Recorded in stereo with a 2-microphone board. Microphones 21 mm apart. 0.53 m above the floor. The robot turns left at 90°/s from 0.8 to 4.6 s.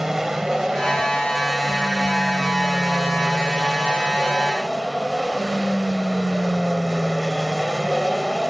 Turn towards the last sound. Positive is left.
turn(degrees=-20)  # may be behind; listen again after turning